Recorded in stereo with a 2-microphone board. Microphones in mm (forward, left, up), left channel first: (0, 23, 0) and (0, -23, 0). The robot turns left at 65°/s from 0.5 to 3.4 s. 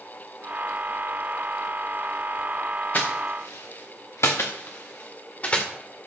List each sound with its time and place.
2.9 s footsteps: 35° left (ahead or behind), 2 m; by 5.7 s 30° left (ahead or behind), 2 m